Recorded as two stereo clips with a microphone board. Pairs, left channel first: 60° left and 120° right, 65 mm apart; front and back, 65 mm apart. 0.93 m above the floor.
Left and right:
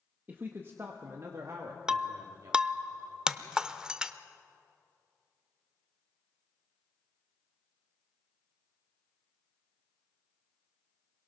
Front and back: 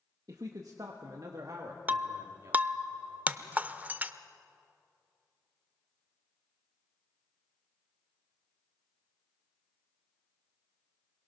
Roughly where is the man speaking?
Behind.